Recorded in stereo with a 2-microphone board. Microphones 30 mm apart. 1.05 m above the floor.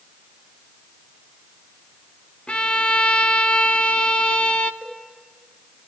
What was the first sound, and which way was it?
A violin, 35° left (ahead or behind).